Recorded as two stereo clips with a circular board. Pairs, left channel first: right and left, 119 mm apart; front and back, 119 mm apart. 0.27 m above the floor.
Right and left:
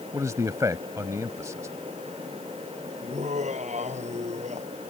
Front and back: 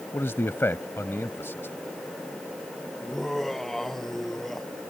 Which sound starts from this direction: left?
Laughter, at 3.0 s.